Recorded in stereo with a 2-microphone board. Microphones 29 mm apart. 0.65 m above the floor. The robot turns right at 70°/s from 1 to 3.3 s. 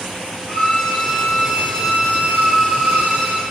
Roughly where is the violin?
Behind.